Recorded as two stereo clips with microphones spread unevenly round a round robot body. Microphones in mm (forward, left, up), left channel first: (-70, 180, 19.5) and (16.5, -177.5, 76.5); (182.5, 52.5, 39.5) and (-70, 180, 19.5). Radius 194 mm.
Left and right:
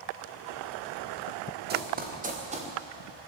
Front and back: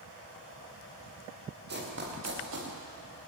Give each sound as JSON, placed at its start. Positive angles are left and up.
{"t": 1.7, "sound": "running footsteps", "azimuth_deg": -140, "distance_m": 6.0}